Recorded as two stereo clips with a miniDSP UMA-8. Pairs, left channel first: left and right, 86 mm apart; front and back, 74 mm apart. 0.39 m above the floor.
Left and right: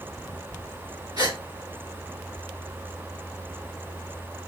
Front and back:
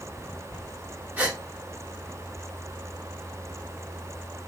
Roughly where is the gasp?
Behind right.